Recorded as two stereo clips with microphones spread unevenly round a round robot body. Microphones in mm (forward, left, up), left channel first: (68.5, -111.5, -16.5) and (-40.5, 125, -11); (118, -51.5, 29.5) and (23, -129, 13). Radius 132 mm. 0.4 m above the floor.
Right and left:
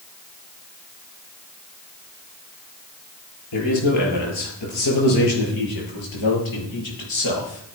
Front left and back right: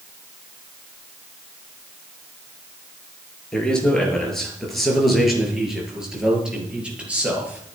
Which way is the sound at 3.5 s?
45° right.